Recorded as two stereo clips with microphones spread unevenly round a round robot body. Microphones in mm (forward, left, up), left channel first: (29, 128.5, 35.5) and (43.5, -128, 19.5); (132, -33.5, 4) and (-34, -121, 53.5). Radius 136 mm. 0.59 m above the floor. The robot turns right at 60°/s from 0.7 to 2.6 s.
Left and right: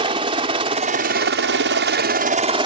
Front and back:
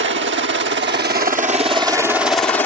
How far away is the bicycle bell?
No bicycle bell in this recording.